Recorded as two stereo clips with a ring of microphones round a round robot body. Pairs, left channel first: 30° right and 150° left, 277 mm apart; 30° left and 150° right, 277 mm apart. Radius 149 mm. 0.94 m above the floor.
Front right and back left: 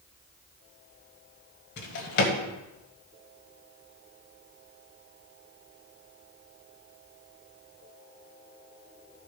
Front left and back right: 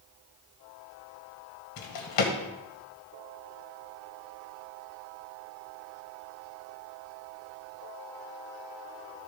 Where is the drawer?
25° left, 1.5 m.